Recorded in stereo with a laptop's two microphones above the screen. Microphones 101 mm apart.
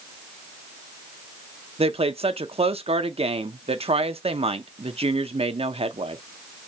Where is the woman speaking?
75° right (ahead or behind), 0.6 m.